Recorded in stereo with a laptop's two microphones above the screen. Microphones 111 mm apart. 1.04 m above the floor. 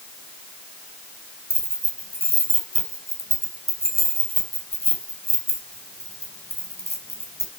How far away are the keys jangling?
About 3.5 m.